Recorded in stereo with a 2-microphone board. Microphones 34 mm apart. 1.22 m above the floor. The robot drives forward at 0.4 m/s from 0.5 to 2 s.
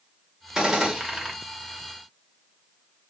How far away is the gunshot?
About 0.8 m.